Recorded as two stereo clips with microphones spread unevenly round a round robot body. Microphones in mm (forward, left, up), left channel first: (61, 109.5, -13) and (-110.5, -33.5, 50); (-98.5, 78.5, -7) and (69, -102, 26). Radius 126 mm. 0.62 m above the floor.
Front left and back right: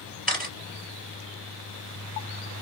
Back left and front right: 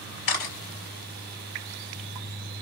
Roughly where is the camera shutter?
Behind left.